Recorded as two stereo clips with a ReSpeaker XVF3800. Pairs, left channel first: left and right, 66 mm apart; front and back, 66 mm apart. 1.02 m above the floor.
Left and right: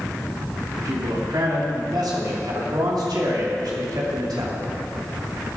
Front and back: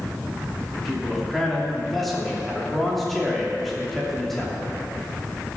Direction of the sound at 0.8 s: 90° right.